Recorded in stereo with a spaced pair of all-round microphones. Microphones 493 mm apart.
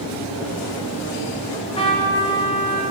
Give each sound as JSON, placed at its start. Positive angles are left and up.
{"t": 1.5, "sound": "a trumpet", "side_deg": 10, "distance_m": 0.6}